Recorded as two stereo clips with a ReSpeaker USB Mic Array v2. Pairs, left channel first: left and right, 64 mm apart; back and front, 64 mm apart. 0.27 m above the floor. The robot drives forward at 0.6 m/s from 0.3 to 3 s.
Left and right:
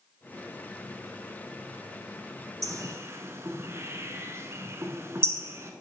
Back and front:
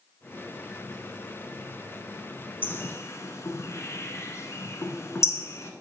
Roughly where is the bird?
Behind right.